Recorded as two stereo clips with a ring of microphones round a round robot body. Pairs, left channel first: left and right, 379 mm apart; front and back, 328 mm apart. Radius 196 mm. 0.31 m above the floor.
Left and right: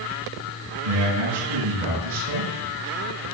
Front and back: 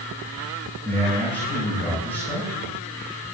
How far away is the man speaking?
About 10 m.